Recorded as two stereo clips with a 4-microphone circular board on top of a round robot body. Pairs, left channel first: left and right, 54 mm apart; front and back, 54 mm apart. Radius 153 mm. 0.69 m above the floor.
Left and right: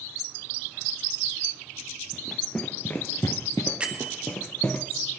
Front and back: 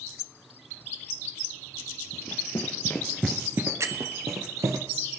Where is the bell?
160° right, 1.5 m.